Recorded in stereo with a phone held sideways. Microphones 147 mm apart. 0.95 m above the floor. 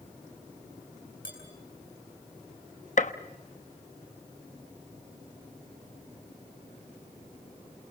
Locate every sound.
1.2 s dishes clattering: 75° left (ahead or behind), 8 m
3.0 s a gunshot: 55° left (ahead or behind), 1.1 m